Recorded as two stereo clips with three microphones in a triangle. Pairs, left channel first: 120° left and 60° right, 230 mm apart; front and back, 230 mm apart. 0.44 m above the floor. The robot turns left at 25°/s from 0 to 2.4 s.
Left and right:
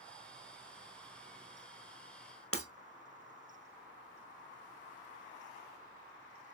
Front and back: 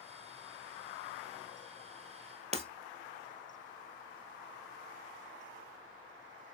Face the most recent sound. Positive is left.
turn(degrees=120)